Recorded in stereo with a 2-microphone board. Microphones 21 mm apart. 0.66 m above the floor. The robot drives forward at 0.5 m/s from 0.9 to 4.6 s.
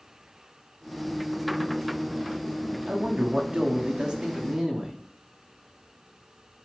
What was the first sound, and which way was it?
A man speaking, 45° right (ahead or behind).